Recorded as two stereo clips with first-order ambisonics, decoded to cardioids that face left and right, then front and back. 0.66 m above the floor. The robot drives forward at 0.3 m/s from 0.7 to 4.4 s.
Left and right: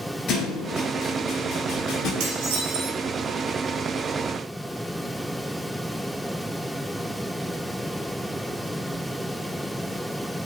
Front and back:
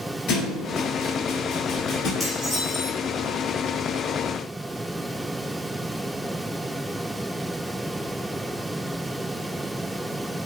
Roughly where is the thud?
Ahead left.